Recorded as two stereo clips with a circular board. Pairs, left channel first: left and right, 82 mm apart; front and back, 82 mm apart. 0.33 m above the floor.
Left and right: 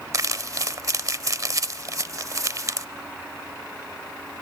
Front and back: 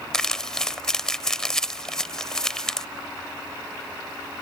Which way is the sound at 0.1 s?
80° right.